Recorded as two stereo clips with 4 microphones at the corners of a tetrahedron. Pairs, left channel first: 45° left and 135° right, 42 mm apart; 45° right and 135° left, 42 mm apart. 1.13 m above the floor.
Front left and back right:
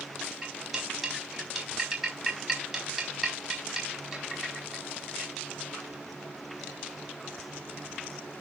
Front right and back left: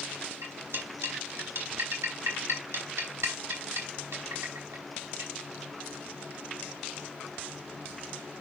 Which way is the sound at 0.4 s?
145° left.